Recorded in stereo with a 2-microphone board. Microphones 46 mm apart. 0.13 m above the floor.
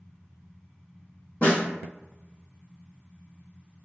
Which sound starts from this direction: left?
A snare drum, at 1.4 s.